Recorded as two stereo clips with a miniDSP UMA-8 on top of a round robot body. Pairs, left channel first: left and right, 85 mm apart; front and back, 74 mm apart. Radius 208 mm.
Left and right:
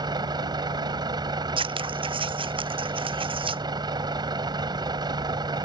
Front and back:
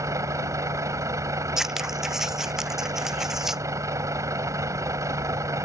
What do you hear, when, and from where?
0.0 s a vehicle: 130° right
1.6 s scissors: 95° right